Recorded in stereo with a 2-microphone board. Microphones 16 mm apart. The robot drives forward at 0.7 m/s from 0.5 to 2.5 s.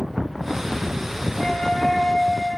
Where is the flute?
75° left (ahead or behind), 3 m; by 2.6 s 60° left (ahead or behind), 3 m.